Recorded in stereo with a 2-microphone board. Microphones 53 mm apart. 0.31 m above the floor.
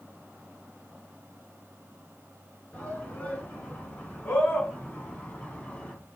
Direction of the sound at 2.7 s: 35° left (ahead or behind).